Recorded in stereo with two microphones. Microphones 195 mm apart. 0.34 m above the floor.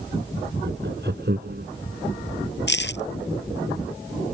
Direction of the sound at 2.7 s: 65° left (ahead or behind).